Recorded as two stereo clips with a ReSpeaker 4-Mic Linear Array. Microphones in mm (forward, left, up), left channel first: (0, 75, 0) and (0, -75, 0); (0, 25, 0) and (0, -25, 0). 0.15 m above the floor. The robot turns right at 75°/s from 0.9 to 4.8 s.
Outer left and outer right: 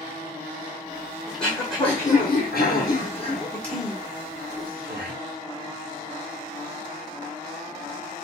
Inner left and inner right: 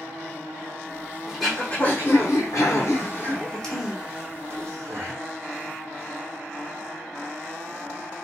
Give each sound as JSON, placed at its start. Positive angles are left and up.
{"t": 1.3, "sound": "throat clearing", "side_deg": -5, "distance_m": 1.5}